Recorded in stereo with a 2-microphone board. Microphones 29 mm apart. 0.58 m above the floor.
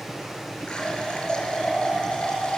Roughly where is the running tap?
Left.